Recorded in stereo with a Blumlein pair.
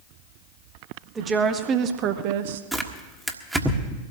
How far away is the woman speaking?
About 1.8 m.